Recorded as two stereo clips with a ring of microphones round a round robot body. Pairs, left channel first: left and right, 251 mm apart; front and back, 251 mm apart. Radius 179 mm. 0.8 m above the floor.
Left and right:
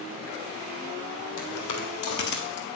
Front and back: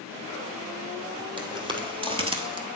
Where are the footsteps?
110° left, 1.7 m; by 2.7 s 130° left, 0.8 m.